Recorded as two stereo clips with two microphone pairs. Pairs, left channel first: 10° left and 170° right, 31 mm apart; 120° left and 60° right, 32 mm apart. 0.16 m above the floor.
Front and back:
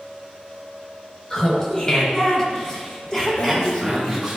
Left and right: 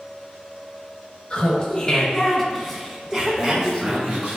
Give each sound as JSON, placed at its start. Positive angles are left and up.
{"t": 1.3, "sound": "laughter", "azimuth_deg": 65, "distance_m": 2.0}
{"t": 3.4, "sound": "breathing", "azimuth_deg": 25, "distance_m": 1.7}